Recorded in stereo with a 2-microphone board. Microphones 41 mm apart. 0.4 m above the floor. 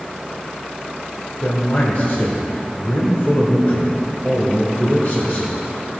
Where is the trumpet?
I don't hear a trumpet.